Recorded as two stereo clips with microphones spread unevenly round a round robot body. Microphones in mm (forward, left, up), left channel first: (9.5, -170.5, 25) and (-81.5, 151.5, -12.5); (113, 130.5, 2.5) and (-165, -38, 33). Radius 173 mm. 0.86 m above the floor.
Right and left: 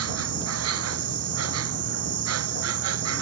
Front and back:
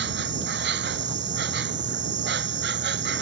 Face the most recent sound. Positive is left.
turn(degrees=155)